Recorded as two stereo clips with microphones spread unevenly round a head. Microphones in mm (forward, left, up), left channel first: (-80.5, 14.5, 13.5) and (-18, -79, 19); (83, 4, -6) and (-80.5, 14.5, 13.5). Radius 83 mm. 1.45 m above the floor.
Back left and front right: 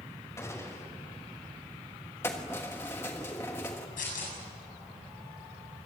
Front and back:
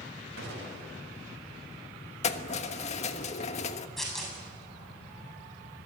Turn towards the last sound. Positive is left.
turn(degrees=85)